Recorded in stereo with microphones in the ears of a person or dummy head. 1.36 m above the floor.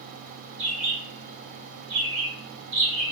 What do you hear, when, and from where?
0.6 s a bird: 35° right (ahead or behind), 0.9 m